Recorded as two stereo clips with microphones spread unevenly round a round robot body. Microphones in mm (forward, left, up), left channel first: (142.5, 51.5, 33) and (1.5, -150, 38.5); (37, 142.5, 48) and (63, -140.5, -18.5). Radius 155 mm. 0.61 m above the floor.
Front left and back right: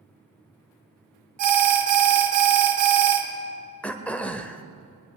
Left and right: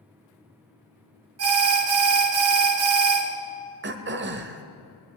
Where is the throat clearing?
30° right, 1.1 m.